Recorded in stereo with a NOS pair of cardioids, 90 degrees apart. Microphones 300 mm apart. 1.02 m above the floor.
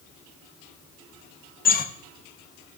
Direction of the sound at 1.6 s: 30° left.